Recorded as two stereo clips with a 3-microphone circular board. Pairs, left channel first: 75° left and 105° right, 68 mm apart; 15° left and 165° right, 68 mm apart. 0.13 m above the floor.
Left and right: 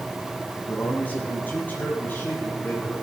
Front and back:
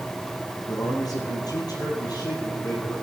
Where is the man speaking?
10° left, 3.5 m; by 3.0 s 15° left, 5 m.